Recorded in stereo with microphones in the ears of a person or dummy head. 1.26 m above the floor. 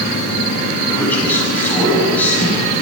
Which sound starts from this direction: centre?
A man speaking, at 0.9 s.